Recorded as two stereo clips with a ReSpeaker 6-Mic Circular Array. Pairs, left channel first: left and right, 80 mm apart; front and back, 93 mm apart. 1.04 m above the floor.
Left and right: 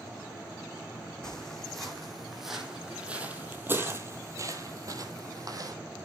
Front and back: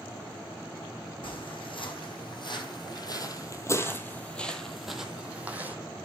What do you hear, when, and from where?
1.2 s footsteps: 5° left, 2.5 m; by 5.8 s 115° right, 1.8 m